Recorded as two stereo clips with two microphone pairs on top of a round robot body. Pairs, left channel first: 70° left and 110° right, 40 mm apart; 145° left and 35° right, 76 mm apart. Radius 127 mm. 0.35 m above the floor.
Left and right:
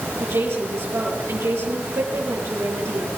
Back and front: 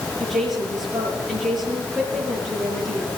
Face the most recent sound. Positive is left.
turn(degrees=-120)